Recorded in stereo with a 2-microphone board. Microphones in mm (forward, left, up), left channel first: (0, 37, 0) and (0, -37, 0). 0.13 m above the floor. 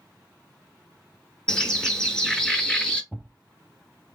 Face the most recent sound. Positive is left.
turn(degrees=-5)  # may be behind; listen again after turning